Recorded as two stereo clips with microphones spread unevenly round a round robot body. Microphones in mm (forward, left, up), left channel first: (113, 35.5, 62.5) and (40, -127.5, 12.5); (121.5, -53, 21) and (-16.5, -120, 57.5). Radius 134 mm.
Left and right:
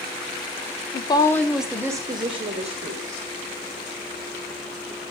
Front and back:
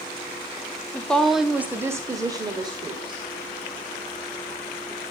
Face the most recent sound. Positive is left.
turn(degrees=-90)